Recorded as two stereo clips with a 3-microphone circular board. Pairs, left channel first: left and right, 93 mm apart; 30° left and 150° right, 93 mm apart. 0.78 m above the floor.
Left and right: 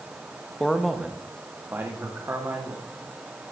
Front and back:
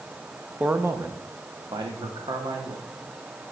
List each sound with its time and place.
0.6 s a man speaking: 155° left, 0.7 m; by 2.9 s 145° right, 1.9 m